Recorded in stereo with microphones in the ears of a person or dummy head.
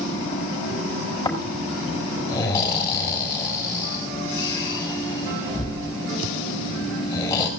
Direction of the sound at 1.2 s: 20° left (ahead or behind).